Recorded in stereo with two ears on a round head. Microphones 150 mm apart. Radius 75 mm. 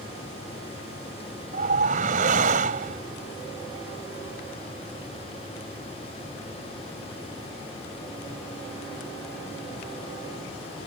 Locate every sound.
1.5 s a whoosh: 55° right (ahead or behind)